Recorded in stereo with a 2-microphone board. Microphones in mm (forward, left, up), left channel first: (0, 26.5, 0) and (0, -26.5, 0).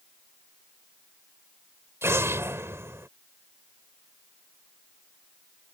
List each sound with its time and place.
2.0 s an explosion: 55° right (ahead or behind)